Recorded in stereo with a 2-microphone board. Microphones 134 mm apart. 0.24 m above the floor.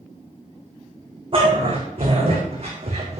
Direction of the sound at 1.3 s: 45° right (ahead or behind).